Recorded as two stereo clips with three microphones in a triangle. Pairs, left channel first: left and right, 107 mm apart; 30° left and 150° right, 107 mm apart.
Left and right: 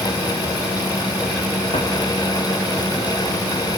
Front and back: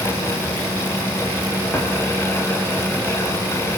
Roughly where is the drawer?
Left.